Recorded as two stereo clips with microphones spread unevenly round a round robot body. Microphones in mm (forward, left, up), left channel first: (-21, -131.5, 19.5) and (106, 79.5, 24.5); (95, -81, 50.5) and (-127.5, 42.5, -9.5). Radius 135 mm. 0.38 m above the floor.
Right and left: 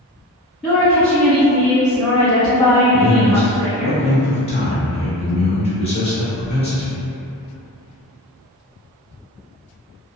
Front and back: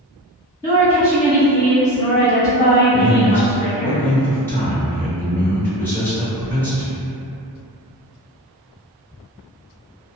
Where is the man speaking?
130° right, 0.8 m.